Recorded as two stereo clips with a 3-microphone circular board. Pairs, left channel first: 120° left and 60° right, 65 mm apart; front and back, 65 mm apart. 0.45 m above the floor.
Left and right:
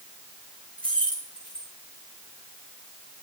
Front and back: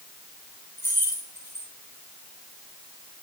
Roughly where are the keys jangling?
Ahead left.